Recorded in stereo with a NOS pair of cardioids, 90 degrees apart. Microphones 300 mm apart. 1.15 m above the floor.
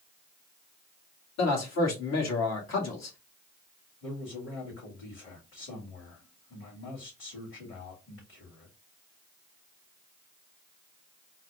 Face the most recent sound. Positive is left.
turn(degrees=45)